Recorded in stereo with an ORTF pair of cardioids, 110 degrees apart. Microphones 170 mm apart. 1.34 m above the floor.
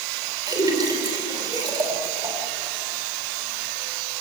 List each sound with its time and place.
0.5 s a splash: 25° right, 4.5 m